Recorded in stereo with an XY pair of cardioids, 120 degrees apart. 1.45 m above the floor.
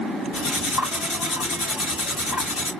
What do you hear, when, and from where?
0.3 s cutlery clinking: 65° left, 2 m